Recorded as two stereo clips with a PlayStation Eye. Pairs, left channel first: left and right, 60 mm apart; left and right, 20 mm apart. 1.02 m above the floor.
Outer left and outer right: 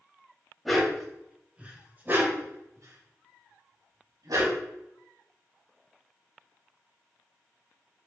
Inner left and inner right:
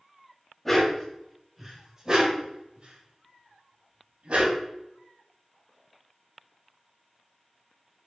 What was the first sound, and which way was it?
A dog barking, centre (ahead or behind).